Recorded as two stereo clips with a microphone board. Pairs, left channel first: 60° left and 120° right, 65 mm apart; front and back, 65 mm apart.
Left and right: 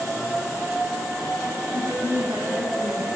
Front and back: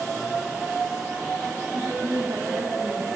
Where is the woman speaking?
155° right, 4.5 m.